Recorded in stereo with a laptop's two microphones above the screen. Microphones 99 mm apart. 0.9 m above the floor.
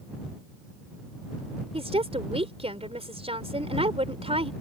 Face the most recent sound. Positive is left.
turn(degrees=-75)  # may be behind; listen again after turning